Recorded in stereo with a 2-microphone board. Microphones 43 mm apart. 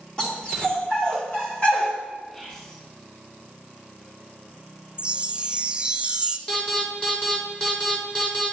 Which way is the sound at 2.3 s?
20° left (ahead or behind).